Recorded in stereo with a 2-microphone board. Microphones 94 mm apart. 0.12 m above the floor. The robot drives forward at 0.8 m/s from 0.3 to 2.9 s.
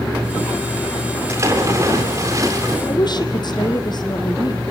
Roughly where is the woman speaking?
Left.